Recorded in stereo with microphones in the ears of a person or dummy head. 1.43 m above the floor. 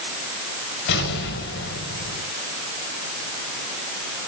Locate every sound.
0.9 s an explosion: 65° left (ahead or behind), 5 m